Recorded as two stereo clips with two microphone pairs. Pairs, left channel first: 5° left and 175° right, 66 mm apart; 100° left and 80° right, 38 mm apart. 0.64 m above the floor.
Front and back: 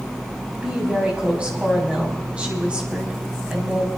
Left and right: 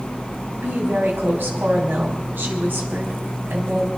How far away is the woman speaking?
About 4 m.